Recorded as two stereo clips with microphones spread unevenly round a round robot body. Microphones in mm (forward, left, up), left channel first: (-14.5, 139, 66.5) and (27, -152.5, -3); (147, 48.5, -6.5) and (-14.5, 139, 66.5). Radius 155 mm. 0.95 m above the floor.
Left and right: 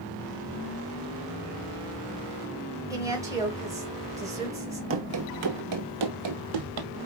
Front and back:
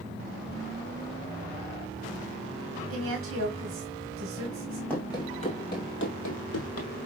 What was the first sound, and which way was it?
A woman speaking, 160° right.